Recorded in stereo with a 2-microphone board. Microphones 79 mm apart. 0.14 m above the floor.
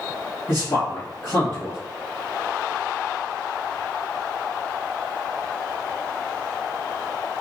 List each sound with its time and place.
0.5 s a man speaking: 30° left (ahead or behind), 1.7 m